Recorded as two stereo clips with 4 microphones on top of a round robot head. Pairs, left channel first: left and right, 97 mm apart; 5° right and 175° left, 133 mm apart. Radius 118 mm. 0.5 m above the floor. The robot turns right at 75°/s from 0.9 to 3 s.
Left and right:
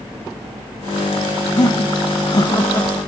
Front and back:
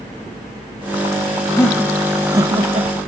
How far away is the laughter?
About 1.1 m.